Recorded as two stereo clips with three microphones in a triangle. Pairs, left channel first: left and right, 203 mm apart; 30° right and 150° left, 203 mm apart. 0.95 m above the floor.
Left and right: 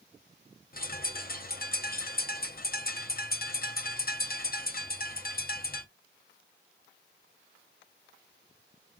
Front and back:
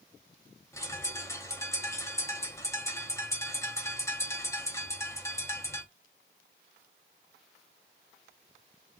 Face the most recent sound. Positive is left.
turn(degrees=45)